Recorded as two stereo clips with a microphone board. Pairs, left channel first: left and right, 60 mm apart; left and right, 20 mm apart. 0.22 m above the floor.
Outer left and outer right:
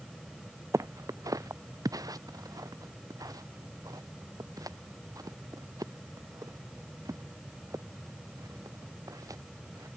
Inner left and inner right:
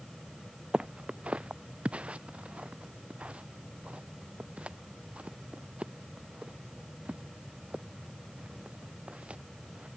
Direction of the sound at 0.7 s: 60° right (ahead or behind).